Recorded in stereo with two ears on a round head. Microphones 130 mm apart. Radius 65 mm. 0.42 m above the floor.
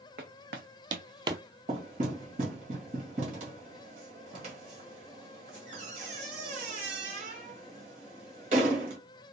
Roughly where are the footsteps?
Right.